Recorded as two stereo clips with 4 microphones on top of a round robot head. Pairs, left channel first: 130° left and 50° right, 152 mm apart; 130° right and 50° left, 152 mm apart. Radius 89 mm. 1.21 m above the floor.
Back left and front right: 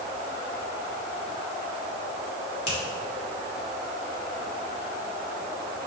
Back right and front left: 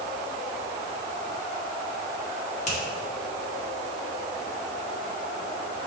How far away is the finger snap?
About 2.5 m.